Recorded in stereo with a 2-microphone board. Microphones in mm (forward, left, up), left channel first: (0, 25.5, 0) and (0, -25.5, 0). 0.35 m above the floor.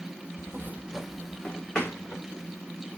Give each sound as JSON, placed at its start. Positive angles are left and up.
{"t": 0.4, "sound": "footsteps", "side_deg": -65, "distance_m": 0.7}